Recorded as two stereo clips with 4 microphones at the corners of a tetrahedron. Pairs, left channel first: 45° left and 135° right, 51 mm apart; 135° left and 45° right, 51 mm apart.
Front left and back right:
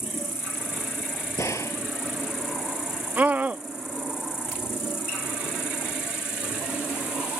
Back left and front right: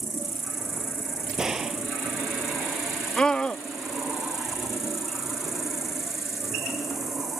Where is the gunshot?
30° left.